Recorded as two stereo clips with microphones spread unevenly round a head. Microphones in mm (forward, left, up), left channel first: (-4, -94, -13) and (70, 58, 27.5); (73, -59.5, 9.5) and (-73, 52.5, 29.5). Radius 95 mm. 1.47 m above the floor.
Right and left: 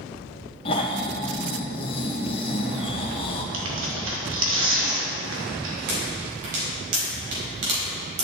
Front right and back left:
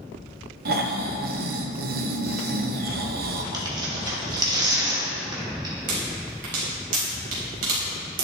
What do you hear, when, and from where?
0.7 s snoring: 175° right, 1.2 m
3.5 s tearing paper: 70° left, 2.5 m
5.9 s a pop: 100° left, 4.5 m